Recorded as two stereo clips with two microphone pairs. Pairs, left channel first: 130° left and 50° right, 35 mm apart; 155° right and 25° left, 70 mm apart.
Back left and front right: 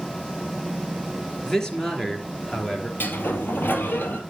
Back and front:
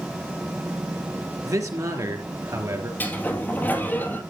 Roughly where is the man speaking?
Ahead left.